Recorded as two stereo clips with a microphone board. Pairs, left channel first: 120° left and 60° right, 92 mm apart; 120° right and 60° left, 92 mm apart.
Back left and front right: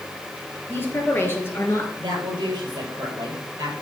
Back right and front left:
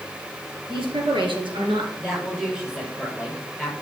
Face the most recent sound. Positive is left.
turn(degrees=-25)